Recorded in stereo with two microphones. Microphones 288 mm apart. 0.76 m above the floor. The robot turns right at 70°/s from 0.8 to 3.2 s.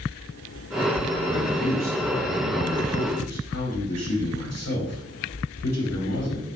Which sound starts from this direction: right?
A man speaking, at 1.3 s.